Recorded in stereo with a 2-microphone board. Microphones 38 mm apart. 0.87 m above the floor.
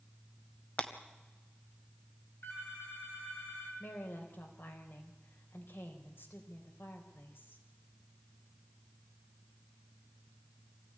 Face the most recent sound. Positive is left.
turn(degrees=70)  # may be behind; listen again after turning